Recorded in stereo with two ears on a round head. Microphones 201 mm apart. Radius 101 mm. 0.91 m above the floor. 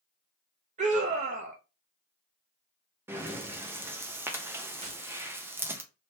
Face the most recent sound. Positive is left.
turn(degrees=-35)  # may be behind; listen again after turning